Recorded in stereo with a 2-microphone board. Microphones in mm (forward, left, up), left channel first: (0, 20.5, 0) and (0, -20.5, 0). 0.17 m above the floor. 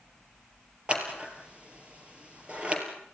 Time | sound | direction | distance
0.9 | scissors | 30° right (ahead or behind) | 4 m